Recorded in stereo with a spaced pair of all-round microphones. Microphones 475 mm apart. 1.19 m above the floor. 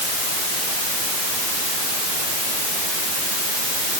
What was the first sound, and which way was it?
Only background noise.